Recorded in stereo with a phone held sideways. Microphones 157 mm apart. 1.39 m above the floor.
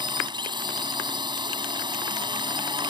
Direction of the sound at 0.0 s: 30° right (ahead or behind).